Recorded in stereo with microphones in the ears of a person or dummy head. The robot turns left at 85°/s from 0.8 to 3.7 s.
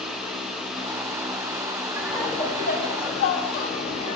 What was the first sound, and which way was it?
Laughter, 165° right.